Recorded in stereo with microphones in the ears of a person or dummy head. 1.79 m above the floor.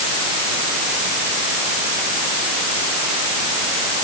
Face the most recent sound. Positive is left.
No sound to turn to.